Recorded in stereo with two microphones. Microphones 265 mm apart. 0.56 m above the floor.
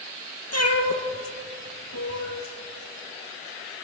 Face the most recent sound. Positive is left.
turn(degrees=70)  # may be behind; listen again after turning